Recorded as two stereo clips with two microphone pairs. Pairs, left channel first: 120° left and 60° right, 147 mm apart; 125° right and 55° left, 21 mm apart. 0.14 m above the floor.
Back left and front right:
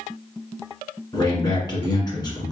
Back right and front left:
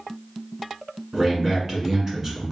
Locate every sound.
1.1 s a man speaking: 90° left, 1.7 m